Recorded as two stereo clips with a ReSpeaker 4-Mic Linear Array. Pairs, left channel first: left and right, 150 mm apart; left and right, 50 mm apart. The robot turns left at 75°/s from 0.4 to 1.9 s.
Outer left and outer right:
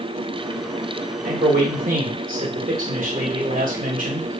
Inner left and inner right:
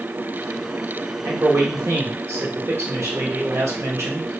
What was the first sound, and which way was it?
A man speaking, 65° right.